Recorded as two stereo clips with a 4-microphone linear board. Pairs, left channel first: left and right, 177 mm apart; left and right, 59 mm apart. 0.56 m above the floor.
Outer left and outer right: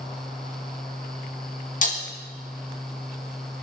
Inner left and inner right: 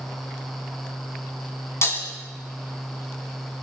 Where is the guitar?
No guitar in this recording.